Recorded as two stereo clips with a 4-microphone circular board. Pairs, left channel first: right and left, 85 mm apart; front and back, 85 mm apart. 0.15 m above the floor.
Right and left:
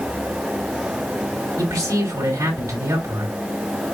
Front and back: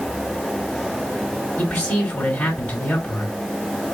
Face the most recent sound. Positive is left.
turn(degrees=70)